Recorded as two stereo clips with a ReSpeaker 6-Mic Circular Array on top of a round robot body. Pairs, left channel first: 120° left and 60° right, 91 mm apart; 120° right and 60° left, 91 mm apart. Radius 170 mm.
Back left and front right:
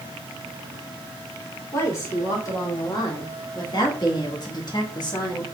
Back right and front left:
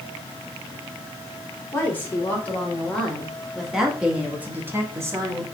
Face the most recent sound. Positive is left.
turn(degrees=100)